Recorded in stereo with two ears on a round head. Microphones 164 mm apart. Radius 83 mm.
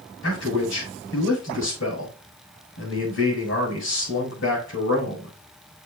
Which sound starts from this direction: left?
A man speaking, at 0.2 s.